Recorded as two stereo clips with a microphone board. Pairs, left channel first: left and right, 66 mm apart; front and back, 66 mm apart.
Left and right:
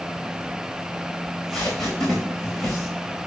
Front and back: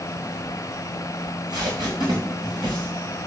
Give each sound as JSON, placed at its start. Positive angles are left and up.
{"t": 1.2, "sound": "tape being pulled", "azimuth_deg": 180, "distance_m": 5.0}